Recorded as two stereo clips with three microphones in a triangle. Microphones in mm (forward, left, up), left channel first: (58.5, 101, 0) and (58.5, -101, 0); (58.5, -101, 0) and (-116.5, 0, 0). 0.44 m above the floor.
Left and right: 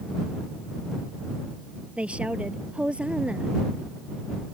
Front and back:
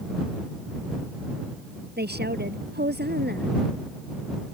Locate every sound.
2.0 s a woman speaking: 175° right